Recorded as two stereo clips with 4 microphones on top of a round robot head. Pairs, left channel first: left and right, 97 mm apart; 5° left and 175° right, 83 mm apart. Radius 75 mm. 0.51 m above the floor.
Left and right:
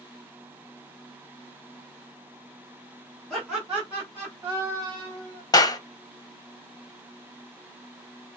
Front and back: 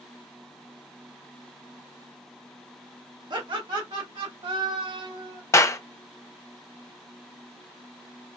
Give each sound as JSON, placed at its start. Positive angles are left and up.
{"t": 3.3, "sound": "laughter", "azimuth_deg": 175, "distance_m": 1.6}
{"t": 5.5, "sound": "a clap", "azimuth_deg": 55, "distance_m": 1.0}